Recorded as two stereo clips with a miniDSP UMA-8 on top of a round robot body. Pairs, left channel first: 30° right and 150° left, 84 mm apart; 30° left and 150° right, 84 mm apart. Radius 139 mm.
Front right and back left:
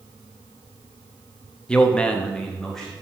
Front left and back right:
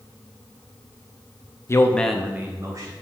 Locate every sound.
1.7 s a man speaking: 40° left, 1.0 m; by 2.9 s 115° right, 1.5 m